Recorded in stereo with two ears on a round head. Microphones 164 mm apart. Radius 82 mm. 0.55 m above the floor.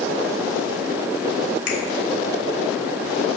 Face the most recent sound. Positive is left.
turn(degrees=50)  # may be behind; listen again after turning